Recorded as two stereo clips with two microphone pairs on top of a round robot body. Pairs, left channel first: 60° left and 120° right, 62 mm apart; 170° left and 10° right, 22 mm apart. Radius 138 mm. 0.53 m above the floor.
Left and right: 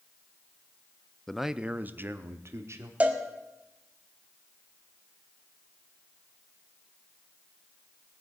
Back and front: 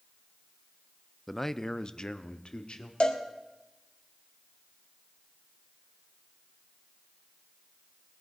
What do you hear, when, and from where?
1.3 s a man speaking: 110° left, 0.6 m; by 2.9 s 160° right, 1.4 m
3.0 s a cowbell: 175° left, 2.0 m